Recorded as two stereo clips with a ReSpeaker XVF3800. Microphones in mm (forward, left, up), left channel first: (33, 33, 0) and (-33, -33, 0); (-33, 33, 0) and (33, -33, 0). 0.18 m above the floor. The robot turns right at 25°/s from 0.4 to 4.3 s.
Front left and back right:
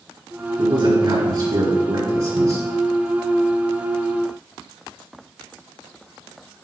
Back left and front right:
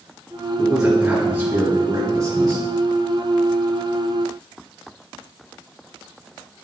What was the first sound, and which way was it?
A man speaking, 130° right.